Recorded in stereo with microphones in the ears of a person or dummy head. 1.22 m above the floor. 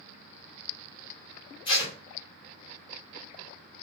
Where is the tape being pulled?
35° left (ahead or behind), 2 m.